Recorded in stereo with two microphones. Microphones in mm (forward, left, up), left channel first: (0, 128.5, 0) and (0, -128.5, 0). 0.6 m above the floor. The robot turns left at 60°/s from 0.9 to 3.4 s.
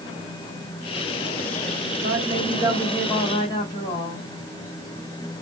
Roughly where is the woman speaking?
Behind right.